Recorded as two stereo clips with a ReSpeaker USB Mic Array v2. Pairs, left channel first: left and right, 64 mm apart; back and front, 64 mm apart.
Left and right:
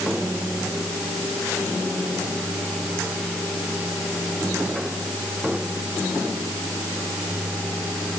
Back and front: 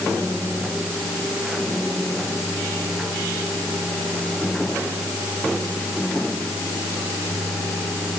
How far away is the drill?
I don't hear a drill.